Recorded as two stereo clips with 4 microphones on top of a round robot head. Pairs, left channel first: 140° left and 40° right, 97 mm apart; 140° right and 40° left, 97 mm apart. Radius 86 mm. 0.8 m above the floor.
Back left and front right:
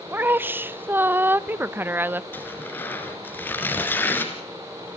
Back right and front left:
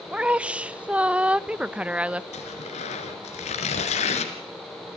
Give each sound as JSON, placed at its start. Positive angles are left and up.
{"t": 0.1, "sound": "a woman speaking", "azimuth_deg": -15, "distance_m": 0.8}
{"t": 2.3, "sound": "tearing paper", "azimuth_deg": -150, "distance_m": 3.0}